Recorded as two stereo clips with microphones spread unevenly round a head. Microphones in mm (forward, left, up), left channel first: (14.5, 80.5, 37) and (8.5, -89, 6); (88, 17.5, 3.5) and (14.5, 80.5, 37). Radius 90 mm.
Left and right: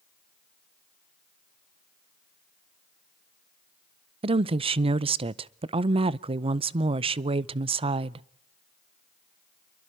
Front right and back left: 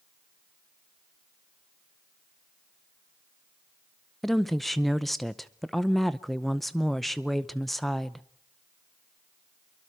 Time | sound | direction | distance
4.2 | a woman speaking | 105° right | 0.6 m